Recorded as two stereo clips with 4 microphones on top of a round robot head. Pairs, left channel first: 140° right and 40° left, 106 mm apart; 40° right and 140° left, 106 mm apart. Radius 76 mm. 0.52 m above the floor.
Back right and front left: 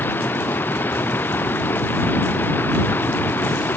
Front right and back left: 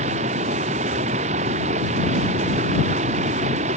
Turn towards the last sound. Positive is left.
turn(degrees=150)